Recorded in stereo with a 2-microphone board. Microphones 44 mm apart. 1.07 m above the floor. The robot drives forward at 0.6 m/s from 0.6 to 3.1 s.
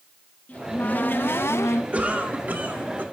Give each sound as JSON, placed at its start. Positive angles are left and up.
{"t": 0.5, "sound": "a cupboard door", "side_deg": 35, "distance_m": 0.9}
{"t": 1.9, "sound": "a cough", "side_deg": -35, "distance_m": 2.0}